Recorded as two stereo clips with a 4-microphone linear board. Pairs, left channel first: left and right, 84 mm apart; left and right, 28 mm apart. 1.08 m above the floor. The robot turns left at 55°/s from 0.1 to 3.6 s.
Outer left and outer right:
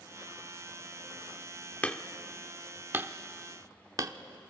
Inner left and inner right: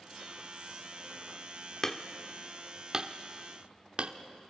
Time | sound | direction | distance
1.8 | hammering | 20° left (ahead or behind) | 0.8 m